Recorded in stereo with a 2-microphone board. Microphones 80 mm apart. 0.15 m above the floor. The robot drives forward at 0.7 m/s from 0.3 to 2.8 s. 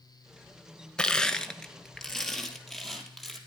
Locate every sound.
1.0 s crushing: 10° left (ahead or behind), 0.6 m; by 3.4 s 5° left (ahead or behind), 1.7 m